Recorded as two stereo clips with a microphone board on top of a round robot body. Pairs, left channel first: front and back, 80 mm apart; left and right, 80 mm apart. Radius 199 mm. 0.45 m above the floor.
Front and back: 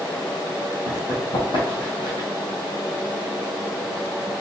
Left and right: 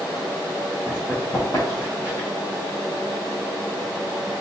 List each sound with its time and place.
0.9 s running footsteps: 15° left, 1.2 m; by 2.3 s 35° left, 1.8 m